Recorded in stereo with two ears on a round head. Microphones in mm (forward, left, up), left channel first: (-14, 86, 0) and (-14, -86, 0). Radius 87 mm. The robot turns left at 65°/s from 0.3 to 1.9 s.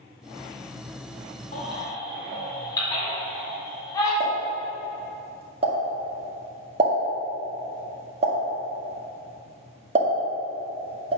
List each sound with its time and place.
1.5 s a baby crying: 40° left (ahead or behind), 2.5 m; by 4.1 s 20° left (ahead or behind), 2.5 m
4.2 s a pop: 35° right (ahead or behind), 1.6 m